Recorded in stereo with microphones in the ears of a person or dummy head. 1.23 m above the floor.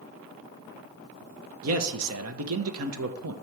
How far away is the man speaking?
About 1.0 m.